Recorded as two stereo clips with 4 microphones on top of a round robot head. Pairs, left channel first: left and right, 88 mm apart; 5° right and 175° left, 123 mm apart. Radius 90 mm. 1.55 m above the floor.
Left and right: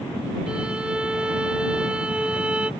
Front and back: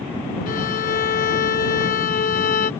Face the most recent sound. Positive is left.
turn(degrees=-10)